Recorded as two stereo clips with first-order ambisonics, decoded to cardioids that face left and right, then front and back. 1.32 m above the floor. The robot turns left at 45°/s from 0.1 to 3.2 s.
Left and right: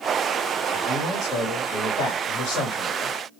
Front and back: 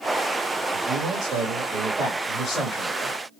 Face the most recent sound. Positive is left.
turn(degrees=45)